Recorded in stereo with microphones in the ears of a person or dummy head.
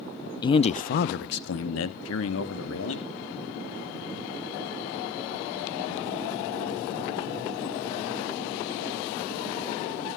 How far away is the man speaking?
About 0.6 m.